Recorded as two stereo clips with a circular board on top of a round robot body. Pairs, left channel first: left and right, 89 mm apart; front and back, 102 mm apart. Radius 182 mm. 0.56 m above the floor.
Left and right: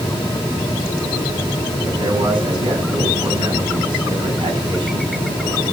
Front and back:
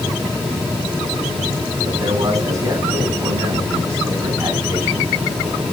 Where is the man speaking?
120° right, 7.5 m; by 5.6 s 105° right, 6.5 m.